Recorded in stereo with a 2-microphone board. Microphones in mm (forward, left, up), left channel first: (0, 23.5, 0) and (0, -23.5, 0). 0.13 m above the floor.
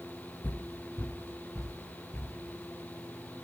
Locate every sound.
0.4 s footsteps: 55° left (ahead or behind), 0.7 m; by 2.4 s 70° left (ahead or behind), 1.9 m